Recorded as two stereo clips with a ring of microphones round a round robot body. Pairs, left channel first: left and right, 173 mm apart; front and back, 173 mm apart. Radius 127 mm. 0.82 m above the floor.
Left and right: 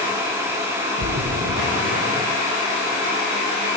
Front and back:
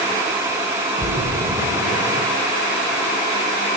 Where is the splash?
110° right, 5.5 m.